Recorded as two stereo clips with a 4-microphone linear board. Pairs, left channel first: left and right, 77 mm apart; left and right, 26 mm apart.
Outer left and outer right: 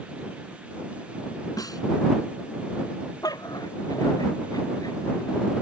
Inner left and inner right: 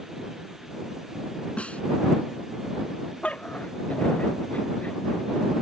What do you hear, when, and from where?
1.6 s a snare drum: 55° left (ahead or behind)
3.2 s a dog barking: 55° left (ahead or behind)